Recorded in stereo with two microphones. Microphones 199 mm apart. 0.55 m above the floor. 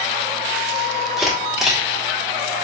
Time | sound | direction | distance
1.2 | a camera shutter | centre (ahead or behind) | 1.1 m